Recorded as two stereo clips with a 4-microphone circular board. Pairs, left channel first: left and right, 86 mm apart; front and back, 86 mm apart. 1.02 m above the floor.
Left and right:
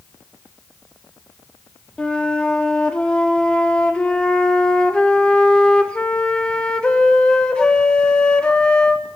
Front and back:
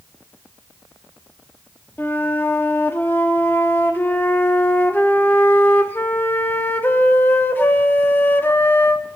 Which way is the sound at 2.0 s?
30° left.